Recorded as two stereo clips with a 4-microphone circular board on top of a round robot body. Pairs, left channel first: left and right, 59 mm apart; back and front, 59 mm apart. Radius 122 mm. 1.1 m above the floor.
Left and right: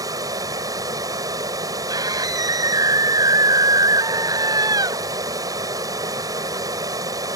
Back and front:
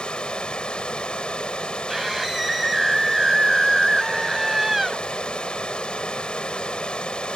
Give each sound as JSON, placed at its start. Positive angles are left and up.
{"t": 0.0, "sound": "running water", "azimuth_deg": -105}
{"t": 1.9, "sound": "a scream", "azimuth_deg": -90}